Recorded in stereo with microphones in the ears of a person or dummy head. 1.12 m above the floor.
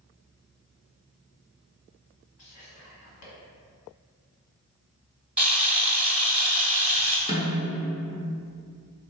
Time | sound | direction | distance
2.4 | whispering | 75° left (ahead or behind) | 1.8 m
5.4 | a camera shutter | 10° right (ahead or behind) | 0.7 m
7.3 | a snare drum | 20° left (ahead or behind) | 0.7 m